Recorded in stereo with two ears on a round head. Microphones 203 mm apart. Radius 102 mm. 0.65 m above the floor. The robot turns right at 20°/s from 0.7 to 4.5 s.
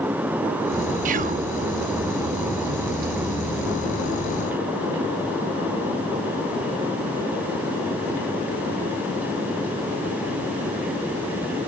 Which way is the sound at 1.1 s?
35° right (ahead or behind).